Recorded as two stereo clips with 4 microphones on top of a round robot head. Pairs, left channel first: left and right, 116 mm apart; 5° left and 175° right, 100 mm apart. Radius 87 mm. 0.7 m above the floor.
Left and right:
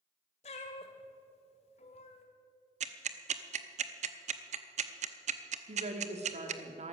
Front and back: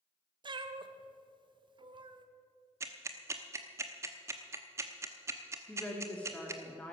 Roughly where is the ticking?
Right.